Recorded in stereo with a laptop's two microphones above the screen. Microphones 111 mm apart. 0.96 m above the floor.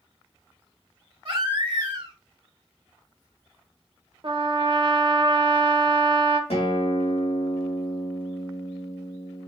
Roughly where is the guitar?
Left.